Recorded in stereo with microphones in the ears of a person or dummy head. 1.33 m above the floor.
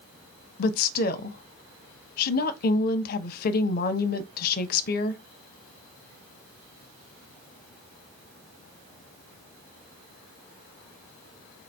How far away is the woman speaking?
About 0.6 m.